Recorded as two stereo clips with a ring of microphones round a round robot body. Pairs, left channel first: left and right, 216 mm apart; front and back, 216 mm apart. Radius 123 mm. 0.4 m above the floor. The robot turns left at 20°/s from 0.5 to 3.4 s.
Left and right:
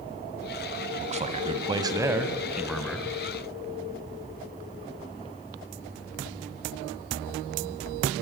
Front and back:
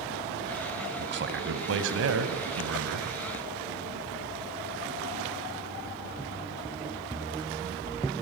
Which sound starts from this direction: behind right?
A man speaking, at 1.0 s.